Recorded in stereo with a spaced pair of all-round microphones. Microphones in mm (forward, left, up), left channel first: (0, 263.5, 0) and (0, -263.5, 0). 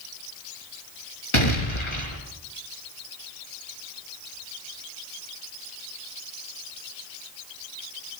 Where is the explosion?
60° left (ahead or behind), 5.5 m.